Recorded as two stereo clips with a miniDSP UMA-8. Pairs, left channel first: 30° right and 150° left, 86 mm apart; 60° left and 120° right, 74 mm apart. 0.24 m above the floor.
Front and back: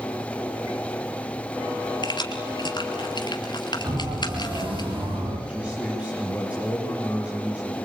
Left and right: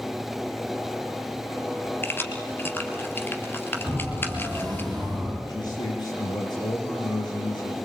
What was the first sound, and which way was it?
Keys jangling, straight ahead.